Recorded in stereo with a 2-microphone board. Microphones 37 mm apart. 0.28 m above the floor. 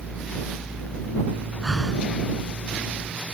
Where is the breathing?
10° left (ahead or behind).